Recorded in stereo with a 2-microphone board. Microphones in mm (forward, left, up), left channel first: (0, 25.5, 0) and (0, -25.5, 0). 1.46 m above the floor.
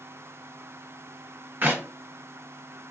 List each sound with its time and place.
1.6 s a clap: 35° right (ahead or behind), 1.1 m